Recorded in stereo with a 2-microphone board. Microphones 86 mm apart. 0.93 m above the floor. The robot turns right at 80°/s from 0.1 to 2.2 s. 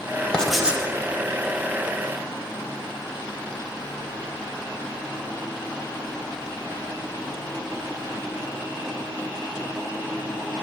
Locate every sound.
0.3 s writing: 165° left, 1.2 m; by 0.8 s 160° right, 1.2 m